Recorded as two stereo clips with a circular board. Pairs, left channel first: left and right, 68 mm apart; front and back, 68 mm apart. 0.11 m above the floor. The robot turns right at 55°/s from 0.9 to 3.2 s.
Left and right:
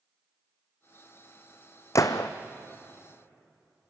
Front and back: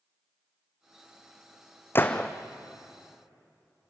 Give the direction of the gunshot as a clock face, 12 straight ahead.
10 o'clock.